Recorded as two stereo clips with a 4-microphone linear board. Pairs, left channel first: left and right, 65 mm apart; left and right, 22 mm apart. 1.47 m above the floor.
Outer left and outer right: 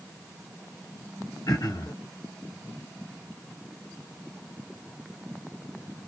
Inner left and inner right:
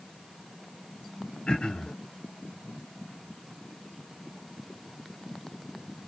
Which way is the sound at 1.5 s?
70° left (ahead or behind).